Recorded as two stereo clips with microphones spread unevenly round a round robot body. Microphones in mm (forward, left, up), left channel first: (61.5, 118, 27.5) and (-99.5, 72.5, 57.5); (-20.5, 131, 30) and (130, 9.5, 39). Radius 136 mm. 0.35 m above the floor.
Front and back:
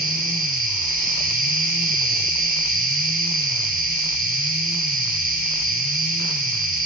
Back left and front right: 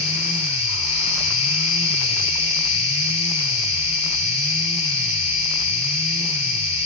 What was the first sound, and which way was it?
An insect, 175° left.